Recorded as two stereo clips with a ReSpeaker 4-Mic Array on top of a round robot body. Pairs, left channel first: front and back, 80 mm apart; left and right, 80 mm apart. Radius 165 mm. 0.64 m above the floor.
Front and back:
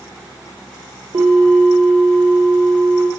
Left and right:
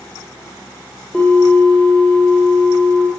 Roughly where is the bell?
Behind.